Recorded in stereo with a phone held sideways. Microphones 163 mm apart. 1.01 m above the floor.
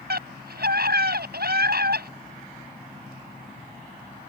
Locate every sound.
0.1 s a scream: 75° right (ahead or behind)